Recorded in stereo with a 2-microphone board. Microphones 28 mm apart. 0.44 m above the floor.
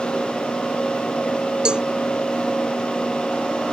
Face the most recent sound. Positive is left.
turn(degrees=-30)  # may be behind; listen again after turning